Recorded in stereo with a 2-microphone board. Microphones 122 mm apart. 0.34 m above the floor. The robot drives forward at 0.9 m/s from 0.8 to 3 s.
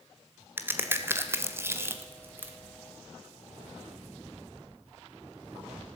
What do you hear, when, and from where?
0.6 s a crack: 20° right (ahead or behind), 1.3 m; by 2.5 s 15° right (ahead or behind), 1.5 m